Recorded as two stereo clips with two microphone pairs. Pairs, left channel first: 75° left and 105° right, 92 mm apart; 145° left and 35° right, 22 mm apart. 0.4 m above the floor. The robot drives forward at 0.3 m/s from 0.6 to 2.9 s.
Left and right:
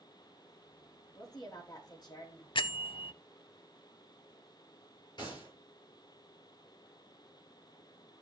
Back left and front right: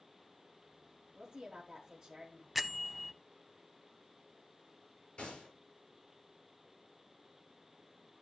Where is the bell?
55° left, 0.5 m; by 3.1 s 65° left, 0.5 m.